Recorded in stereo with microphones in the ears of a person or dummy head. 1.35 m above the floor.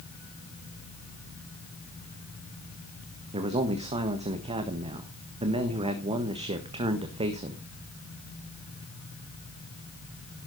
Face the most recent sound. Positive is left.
turn(degrees=-30)  # may be behind; listen again after turning